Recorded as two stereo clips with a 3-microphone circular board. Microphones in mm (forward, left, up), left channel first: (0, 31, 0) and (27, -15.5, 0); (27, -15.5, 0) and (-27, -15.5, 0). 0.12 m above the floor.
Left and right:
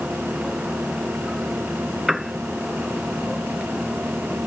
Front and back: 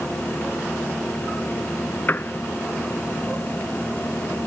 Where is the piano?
15° left.